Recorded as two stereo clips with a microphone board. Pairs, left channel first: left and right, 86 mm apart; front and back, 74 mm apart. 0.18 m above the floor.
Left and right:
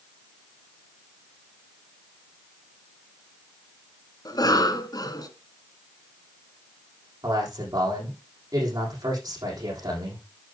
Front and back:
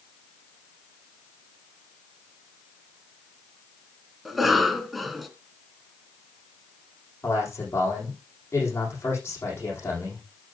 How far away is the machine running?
I don't hear a machine running.